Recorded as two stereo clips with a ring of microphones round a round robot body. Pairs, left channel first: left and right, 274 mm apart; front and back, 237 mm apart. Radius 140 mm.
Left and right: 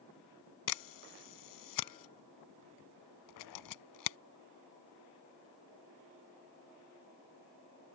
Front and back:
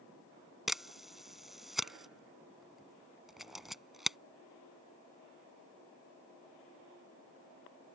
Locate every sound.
0.7 s a camera shutter: 90° left